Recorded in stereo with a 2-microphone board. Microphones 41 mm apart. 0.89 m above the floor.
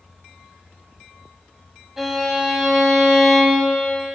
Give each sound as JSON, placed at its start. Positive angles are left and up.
{"t": 2.0, "sound": "a violin", "side_deg": -10, "distance_m": 2.0}